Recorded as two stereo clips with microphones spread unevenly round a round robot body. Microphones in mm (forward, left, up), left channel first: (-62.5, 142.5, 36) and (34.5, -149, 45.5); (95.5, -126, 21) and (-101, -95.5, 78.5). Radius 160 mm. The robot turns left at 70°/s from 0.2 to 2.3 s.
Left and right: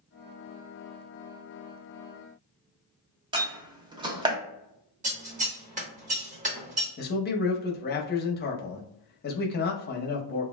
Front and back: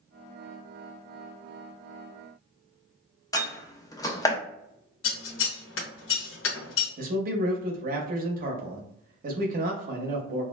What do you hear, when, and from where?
3.3 s a door slam: 5° right, 0.6 m
5.0 s scissors: 5° right, 0.9 m
7.0 s a man speaking: 130° left, 0.7 m